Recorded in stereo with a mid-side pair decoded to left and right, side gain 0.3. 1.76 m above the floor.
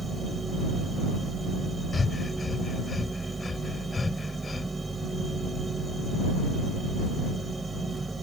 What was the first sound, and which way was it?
A machine running, 35° right.